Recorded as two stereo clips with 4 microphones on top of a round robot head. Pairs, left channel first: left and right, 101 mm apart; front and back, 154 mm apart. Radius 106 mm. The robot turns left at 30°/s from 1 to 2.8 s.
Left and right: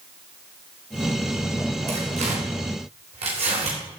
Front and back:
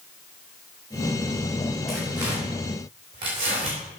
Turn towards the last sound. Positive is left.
turn(degrees=-120)